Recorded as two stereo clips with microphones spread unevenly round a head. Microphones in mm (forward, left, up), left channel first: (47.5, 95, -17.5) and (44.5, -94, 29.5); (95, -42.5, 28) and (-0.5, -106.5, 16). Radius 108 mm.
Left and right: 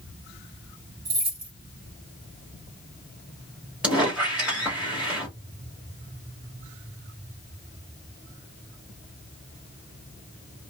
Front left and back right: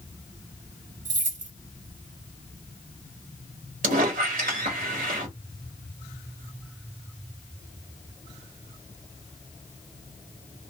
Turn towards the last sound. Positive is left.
turn(degrees=-170)